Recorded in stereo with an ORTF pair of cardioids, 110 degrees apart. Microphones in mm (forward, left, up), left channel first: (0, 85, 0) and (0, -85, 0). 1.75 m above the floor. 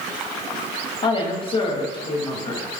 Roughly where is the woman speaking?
Ahead left.